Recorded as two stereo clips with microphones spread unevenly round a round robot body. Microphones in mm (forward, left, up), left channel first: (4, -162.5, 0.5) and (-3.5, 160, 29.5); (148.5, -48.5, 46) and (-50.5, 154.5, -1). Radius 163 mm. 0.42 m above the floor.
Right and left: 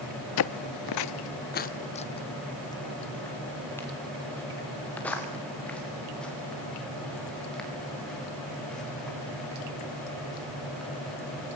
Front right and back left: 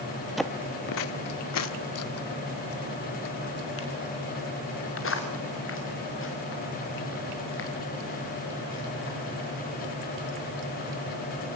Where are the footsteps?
130° right, 0.6 m; by 11.2 s straight ahead, 9.5 m.